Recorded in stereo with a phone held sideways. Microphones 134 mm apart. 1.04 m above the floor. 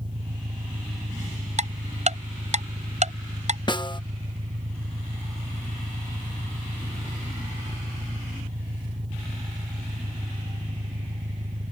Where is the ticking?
55° right (ahead or behind).